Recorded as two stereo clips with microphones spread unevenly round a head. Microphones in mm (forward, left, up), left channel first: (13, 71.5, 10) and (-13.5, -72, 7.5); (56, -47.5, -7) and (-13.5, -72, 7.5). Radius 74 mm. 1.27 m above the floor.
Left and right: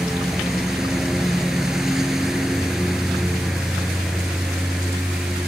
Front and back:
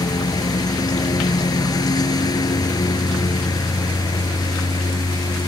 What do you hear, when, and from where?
0.0 s a lawn mower: 10° right